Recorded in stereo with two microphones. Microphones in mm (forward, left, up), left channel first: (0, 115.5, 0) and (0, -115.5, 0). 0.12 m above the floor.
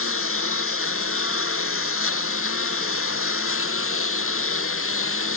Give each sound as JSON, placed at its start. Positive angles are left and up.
{"t": 0.0, "sound": "a lawn mower", "side_deg": 65}